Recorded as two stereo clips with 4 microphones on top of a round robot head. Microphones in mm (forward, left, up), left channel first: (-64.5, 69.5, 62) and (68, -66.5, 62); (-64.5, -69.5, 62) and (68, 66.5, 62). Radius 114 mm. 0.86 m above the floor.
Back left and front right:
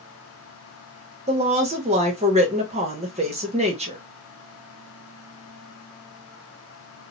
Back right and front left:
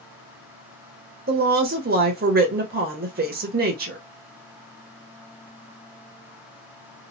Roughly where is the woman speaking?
Ahead.